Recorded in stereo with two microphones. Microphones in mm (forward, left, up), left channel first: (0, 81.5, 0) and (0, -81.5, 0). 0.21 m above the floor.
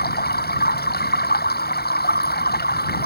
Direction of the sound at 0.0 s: 80° left.